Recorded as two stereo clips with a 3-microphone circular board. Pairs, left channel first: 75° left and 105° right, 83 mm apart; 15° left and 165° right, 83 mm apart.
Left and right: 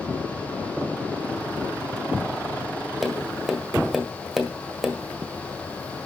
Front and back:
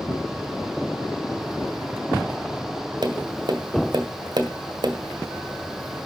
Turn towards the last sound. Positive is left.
turn(degrees=170)